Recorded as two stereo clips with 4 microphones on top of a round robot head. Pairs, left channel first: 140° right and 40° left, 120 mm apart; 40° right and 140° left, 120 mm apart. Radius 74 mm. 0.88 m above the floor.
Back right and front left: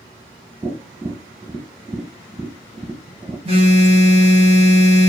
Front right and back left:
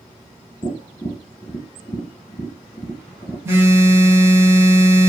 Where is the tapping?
20° right, 0.9 m.